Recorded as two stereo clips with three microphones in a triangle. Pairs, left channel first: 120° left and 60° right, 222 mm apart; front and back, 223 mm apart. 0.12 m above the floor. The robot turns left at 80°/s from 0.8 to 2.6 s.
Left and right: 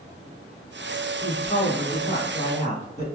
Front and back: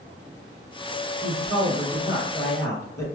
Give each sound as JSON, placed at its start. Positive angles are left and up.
{"t": 1.2, "sound": "a man speaking", "azimuth_deg": -175, "distance_m": 1.7}